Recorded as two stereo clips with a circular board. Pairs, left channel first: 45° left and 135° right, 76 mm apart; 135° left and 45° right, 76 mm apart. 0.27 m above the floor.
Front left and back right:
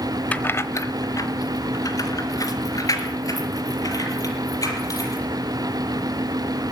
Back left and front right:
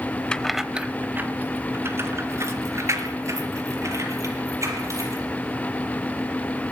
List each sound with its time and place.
0.3 s keys jangling: 80° left, 0.9 m; by 5.2 s straight ahead, 7 m